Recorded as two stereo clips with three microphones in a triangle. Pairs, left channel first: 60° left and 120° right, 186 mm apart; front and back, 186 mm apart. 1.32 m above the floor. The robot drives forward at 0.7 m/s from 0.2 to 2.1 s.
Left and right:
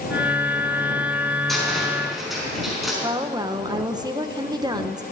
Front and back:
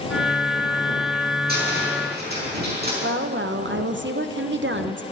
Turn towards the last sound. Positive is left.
turn(degrees=175)